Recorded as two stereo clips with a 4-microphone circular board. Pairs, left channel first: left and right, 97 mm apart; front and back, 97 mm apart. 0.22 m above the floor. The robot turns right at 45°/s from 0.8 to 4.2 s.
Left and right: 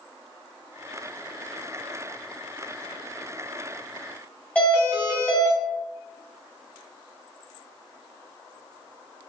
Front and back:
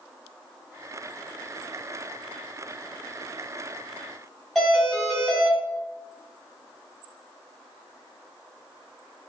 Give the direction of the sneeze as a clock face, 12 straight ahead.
I don't hear a sneeze.